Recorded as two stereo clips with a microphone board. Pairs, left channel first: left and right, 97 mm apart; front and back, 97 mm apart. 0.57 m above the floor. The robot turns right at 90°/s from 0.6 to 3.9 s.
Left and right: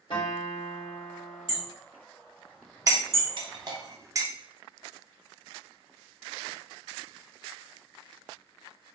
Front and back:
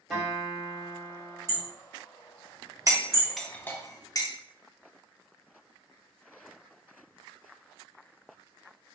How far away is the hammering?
About 1.5 m.